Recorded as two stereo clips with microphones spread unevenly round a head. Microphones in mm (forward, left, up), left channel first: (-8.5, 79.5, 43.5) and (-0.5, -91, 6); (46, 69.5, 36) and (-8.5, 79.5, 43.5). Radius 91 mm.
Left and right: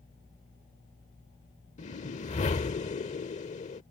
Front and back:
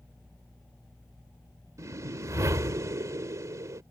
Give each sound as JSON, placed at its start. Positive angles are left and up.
{"t": 1.8, "sound": "a whoosh", "azimuth_deg": 145}